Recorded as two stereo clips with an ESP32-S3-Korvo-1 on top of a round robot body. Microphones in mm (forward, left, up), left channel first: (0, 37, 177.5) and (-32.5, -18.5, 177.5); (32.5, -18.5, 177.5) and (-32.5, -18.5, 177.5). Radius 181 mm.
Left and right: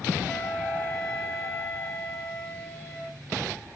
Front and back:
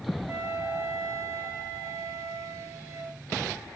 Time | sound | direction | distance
0.3 | a flute | 125° left | 8.5 m